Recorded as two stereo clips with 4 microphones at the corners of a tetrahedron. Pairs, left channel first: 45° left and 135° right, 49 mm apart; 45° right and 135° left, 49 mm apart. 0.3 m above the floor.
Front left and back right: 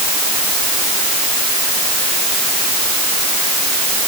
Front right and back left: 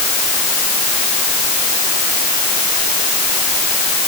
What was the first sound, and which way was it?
Only background noise.